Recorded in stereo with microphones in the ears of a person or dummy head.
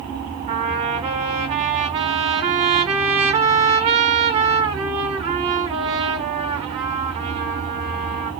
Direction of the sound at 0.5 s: 35° right (ahead or behind).